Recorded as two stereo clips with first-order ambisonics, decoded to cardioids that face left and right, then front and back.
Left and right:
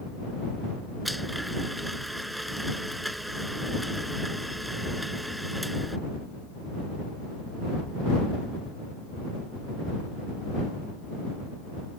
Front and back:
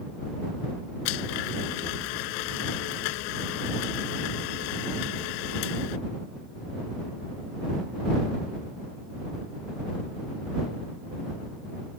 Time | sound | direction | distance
1.1 | a blender | 5° right | ?